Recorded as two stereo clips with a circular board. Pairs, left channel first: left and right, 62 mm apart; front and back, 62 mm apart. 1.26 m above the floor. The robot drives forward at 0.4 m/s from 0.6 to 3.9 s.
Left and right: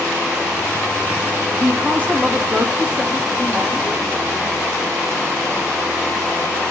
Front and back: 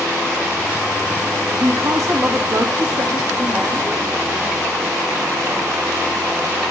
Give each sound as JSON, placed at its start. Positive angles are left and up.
{"t": 1.5, "sound": "a woman speaking", "azimuth_deg": -155, "distance_m": 1.7}